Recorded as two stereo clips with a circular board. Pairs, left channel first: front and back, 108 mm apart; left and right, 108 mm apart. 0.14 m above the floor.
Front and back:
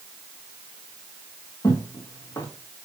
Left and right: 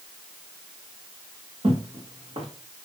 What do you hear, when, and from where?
1.6 s footsteps: 60° right, 2 m